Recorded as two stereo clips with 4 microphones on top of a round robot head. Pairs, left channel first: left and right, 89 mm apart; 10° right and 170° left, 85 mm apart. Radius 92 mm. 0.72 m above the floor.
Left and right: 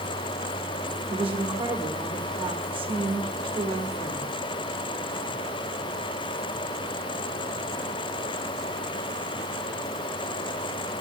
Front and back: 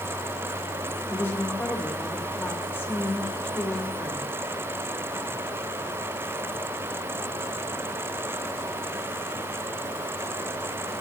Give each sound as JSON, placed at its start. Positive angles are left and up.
{"t": 1.1, "sound": "a woman speaking", "azimuth_deg": -75, "distance_m": 3.0}